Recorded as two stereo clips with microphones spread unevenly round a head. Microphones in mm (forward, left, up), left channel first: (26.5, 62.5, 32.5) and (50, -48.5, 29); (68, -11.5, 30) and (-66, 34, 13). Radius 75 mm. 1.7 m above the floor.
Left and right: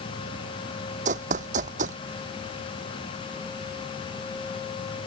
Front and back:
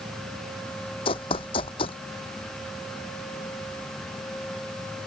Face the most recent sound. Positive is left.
turn(degrees=-70)